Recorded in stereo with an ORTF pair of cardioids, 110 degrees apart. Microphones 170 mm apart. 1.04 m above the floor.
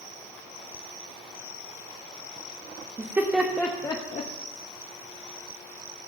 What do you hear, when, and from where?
3.0 s laughter: 20° right, 1.5 m; by 4.3 s 45° left, 1.3 m